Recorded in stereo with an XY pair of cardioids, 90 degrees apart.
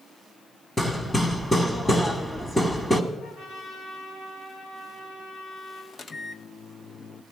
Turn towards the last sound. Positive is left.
turn(degrees=45)